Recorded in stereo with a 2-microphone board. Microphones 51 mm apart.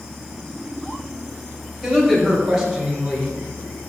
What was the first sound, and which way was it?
A woman speaking, 5° left (ahead or behind).